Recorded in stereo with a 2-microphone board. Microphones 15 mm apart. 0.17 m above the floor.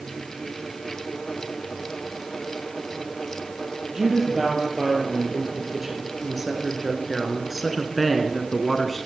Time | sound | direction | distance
3.9 | a woman speaking | 20° right (ahead or behind) | 4 m